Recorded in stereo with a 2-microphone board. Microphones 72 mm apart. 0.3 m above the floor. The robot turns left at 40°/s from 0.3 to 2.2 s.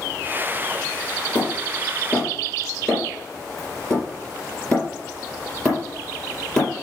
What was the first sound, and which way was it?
Hammering, 45° left (ahead or behind).